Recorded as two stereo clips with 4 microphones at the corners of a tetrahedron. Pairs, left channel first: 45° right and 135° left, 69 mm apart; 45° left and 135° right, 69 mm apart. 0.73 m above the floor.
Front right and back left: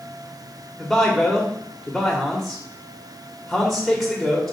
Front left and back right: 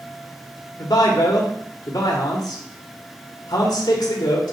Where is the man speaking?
40° left, 1.8 m.